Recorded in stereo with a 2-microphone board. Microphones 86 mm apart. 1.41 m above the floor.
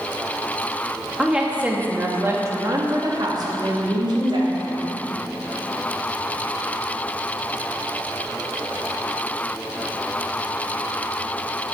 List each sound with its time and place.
1.2 s a woman speaking: 5° right (ahead or behind), 2.5 m; by 5.0 s 75° right (ahead or behind), 3.5 m